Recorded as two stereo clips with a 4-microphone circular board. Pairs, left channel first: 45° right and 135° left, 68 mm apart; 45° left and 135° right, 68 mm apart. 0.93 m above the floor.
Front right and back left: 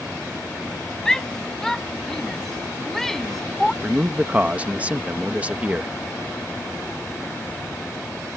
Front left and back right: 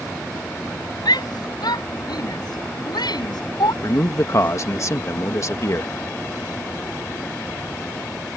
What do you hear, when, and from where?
1.1 s a shout: 35° left; by 3.7 s 40° left
3.8 s a man speaking: 70° left